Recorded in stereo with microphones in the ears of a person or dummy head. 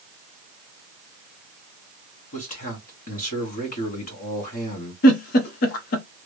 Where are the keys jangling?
I don't hear keys jangling.